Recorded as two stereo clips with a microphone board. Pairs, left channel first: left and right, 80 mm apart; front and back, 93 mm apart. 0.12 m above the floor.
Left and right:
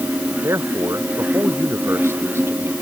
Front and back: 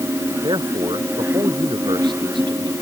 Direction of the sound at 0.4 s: 145° right.